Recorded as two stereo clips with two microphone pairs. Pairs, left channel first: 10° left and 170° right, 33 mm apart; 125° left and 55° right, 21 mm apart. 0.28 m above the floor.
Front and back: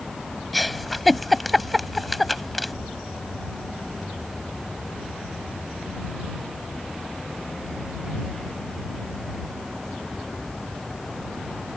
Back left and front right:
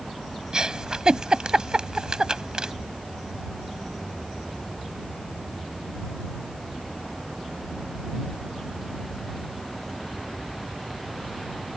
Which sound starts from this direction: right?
A giggle, at 0.5 s.